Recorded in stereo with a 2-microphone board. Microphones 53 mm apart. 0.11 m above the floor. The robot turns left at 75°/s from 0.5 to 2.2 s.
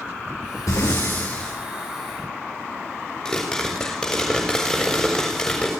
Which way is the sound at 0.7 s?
75° left.